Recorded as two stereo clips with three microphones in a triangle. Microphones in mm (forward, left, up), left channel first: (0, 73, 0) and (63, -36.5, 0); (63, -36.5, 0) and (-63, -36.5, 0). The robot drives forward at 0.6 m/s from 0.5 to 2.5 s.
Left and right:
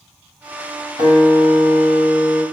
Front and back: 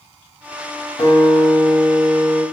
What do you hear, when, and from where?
1.0 s a guitar: 45° right, 1.4 m; by 2.4 s 85° right, 1.0 m